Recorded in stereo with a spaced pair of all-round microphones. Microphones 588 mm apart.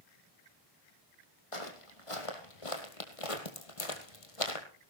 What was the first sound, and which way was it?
Footsteps, 60° left (ahead or behind).